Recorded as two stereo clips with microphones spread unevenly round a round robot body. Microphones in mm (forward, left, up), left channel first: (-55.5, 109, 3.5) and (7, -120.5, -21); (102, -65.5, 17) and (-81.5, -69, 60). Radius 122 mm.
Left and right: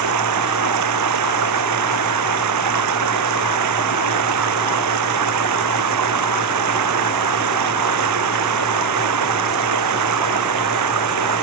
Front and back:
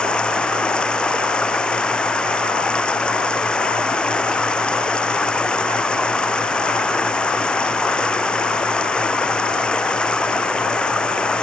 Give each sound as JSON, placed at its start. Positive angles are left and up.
{"t": 0.0, "sound": "running water", "azimuth_deg": -85}